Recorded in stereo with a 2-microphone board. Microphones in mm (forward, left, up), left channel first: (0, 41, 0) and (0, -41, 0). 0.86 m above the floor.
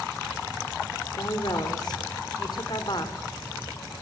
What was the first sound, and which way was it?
A woman speaking, 55° left (ahead or behind).